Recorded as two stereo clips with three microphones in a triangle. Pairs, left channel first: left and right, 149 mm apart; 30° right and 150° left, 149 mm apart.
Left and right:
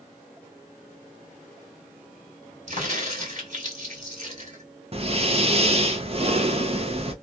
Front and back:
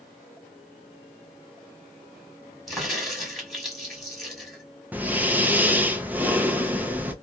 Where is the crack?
120° right, 1.8 m.